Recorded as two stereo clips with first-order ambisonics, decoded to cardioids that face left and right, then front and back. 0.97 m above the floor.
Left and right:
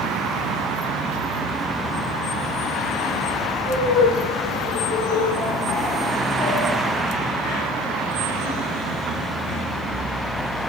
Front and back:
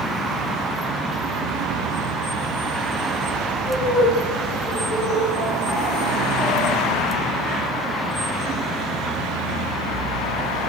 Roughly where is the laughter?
Left.